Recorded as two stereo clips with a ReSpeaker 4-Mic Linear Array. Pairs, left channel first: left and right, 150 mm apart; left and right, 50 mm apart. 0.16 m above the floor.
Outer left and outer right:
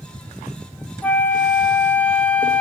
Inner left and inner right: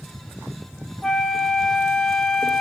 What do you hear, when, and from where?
1.0 s a flute: 10° left (ahead or behind), 0.9 m